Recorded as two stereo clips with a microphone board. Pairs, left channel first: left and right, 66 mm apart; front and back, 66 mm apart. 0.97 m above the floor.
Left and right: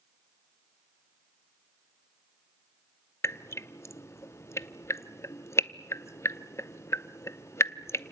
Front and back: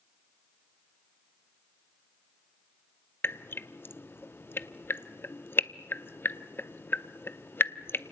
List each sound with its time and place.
3.2 s dripping: 50° left, 0.6 m